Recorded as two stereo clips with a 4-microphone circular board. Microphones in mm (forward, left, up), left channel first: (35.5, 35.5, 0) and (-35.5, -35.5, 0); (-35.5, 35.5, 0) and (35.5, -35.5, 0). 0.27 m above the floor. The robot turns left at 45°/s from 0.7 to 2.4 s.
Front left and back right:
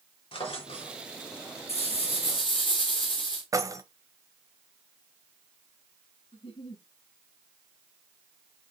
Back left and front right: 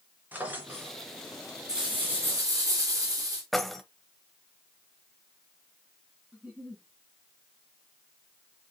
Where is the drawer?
25° left, 2.5 m; by 1.0 s 15° left, 2.5 m.